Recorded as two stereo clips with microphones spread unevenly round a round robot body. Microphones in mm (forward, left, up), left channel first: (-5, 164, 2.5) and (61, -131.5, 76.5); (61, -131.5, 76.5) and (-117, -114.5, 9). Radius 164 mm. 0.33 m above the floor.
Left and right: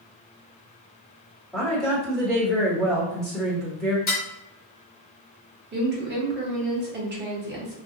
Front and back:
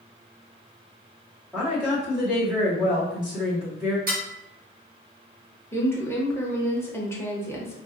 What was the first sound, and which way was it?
A woman speaking, 160° left.